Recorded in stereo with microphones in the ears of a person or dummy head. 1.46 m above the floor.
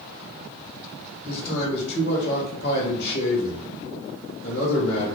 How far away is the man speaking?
About 0.9 m.